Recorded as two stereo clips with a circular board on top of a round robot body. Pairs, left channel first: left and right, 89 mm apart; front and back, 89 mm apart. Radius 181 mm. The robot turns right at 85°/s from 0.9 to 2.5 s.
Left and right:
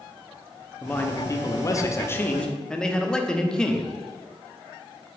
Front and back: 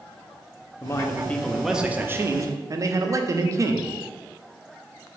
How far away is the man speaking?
About 0.6 m.